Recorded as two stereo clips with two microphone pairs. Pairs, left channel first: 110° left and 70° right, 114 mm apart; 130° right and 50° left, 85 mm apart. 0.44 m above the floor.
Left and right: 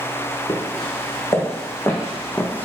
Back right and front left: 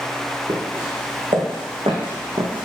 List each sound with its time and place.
0.5 s footsteps: 55° left, 2.5 m; by 2.6 s 40° left, 1.5 m